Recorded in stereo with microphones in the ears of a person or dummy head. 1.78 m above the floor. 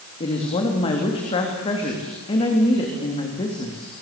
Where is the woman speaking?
30° left (ahead or behind), 3.5 m.